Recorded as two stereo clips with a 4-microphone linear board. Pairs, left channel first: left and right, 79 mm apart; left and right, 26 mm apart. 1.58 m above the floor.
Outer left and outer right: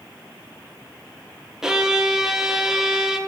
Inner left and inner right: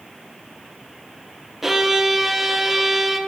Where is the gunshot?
No gunshot in this recording.